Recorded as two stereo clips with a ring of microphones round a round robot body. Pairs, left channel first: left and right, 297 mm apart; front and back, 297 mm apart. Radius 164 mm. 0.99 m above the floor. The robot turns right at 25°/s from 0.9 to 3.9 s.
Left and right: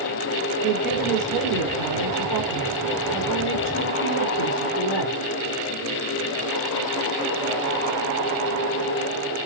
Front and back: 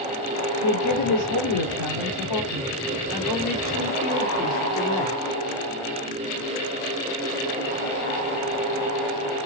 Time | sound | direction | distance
0.6 | a woman speaking | 5° right | 3 m